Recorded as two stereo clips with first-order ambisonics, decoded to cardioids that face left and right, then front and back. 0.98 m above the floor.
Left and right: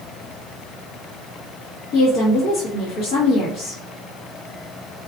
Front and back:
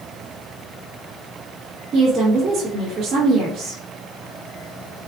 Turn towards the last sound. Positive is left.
turn(degrees=110)